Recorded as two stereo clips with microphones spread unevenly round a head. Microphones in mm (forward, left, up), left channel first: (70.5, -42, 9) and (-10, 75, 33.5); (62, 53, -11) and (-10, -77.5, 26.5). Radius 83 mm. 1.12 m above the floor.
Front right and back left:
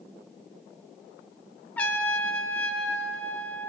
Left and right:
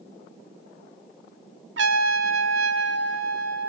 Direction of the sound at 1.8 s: 135° right.